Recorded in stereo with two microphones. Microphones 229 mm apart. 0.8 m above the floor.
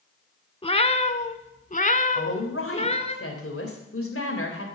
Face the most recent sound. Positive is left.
turn(degrees=70)  # may be behind; listen again after turning